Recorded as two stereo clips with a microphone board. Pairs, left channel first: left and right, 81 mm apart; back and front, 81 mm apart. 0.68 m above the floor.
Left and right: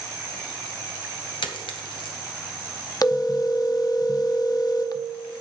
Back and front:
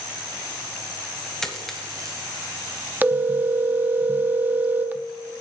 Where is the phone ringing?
60° left, 0.6 m.